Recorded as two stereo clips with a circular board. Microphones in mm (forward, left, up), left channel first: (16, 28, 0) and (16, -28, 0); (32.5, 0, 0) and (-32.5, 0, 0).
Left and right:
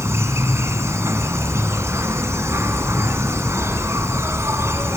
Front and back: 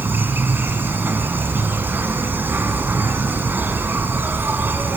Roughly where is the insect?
Behind right.